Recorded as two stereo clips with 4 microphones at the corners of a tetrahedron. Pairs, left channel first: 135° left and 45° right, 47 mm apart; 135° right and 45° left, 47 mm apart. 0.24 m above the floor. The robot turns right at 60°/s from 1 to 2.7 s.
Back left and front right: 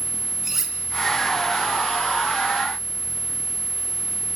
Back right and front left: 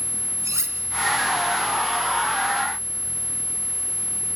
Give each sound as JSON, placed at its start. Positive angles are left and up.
{"t": 0.4, "sound": "cutlery clinking", "azimuth_deg": 40, "distance_m": 3.0}